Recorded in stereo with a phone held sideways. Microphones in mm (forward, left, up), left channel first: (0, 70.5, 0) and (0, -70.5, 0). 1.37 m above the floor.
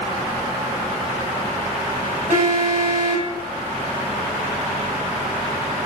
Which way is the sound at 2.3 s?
70° right (ahead or behind).